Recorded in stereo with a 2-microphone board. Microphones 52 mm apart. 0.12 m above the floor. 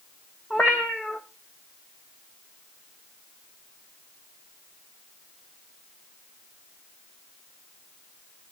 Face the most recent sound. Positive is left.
turn(degrees=25)  # may be behind; listen again after turning